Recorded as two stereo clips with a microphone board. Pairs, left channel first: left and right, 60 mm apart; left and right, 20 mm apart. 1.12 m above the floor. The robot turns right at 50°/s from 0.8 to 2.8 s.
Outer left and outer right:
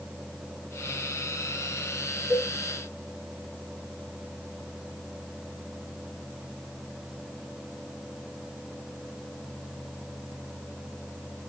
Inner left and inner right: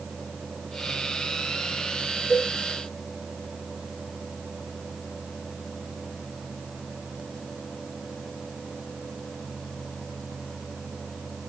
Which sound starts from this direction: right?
A cowbell, at 2.3 s.